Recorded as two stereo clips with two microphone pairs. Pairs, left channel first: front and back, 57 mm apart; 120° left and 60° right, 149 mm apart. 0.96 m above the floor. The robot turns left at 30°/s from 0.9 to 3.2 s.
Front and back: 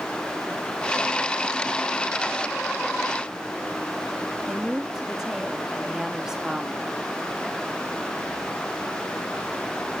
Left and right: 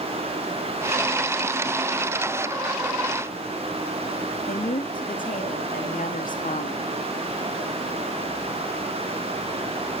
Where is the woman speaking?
100° left, 1.7 m.